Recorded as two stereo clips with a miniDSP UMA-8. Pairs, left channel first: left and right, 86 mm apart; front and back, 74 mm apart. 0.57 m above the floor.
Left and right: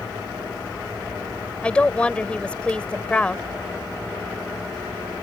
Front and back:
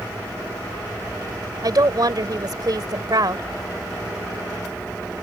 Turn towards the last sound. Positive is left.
turn(degrees=165)